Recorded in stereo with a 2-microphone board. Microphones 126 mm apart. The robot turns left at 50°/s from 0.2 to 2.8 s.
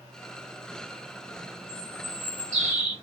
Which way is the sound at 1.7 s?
65° right.